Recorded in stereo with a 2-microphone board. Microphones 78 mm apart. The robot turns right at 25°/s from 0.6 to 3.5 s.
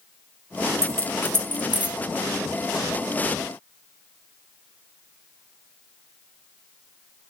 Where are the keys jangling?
45° right (ahead or behind), 0.9 m; by 2.0 s 15° right (ahead or behind), 0.9 m.